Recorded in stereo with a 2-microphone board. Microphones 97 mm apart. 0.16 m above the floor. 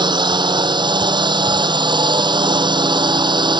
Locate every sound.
0.0 s a drone: 50° right (ahead or behind)